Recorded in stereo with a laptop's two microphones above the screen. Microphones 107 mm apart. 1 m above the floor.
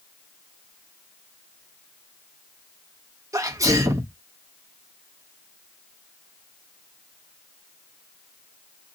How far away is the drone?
No drone in this recording.